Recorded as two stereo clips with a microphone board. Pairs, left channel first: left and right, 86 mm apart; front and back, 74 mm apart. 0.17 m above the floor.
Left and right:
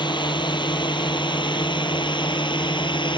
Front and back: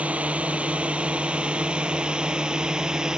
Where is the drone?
110° left; by 3.2 s 100° left.